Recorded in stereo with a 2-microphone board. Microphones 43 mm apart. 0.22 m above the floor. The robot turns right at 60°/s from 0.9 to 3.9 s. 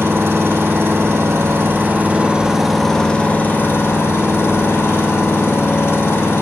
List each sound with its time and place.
0.0 s an engine running: 105° right, 5.5 m; by 6.4 s 75° left, 5.5 m